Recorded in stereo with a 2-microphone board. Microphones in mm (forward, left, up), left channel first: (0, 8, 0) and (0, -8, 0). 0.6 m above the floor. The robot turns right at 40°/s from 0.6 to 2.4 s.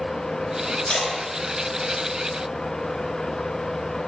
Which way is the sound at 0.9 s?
65° left (ahead or behind).